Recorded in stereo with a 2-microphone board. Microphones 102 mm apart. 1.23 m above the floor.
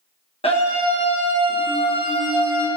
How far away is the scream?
About 1.1 m.